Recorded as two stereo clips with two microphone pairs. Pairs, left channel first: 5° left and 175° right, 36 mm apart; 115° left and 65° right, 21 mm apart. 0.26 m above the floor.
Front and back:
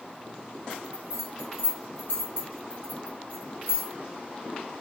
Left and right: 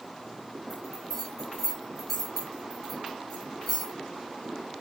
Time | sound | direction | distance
0.7 | a bell | 40° left | 3 m